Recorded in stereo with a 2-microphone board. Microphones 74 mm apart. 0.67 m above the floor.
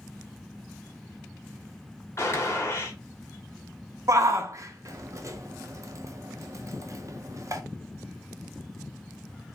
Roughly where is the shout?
Right.